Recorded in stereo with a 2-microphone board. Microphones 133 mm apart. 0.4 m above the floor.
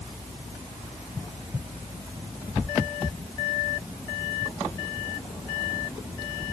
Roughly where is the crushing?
I don't hear crushing.